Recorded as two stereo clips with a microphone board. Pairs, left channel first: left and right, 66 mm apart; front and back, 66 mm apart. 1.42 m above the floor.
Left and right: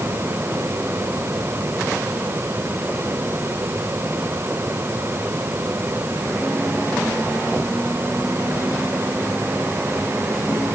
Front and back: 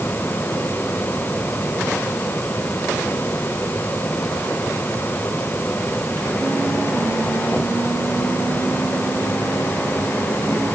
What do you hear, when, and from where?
Only background noise.